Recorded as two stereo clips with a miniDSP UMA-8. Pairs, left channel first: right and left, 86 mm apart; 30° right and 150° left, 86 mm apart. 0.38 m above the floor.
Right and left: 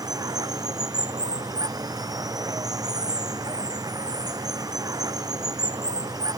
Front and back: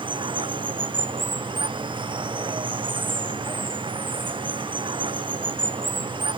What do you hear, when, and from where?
0.0 s running water: 130° left